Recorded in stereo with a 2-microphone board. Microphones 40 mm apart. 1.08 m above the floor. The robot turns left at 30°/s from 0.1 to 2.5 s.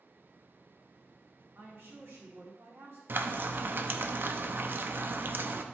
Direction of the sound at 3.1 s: 55° right (ahead or behind).